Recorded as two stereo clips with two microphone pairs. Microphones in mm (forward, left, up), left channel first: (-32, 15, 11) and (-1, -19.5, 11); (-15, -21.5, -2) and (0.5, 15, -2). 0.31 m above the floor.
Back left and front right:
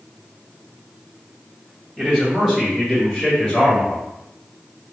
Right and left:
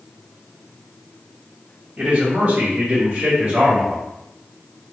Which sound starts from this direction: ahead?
A man speaking, at 2.0 s.